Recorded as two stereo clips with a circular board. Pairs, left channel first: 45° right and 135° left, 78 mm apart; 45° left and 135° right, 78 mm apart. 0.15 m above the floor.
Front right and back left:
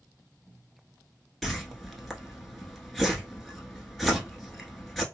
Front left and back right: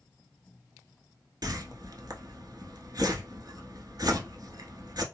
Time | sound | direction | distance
1.4 | a whoosh | 135° right | 0.8 m